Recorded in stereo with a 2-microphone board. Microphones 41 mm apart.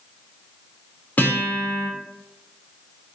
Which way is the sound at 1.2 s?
40° left (ahead or behind).